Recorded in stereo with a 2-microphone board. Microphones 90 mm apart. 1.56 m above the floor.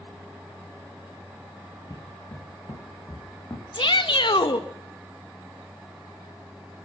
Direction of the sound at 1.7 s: 45° left (ahead or behind).